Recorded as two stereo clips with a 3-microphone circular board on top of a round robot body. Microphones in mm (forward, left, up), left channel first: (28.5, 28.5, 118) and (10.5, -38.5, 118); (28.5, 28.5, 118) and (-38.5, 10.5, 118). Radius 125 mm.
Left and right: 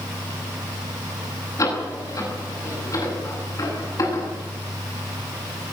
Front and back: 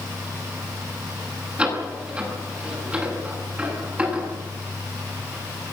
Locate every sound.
1.6 s a door slam: 120° left, 10 m